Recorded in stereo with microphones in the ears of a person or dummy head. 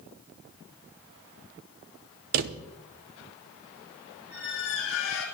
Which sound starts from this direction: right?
A drawer, at 2.3 s.